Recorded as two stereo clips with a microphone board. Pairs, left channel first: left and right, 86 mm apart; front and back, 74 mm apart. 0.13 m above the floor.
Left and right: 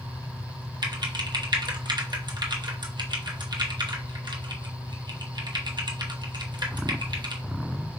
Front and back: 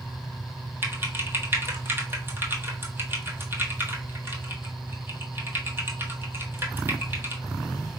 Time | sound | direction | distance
0.8 | typing on a keyboard | 120° right | 1.0 m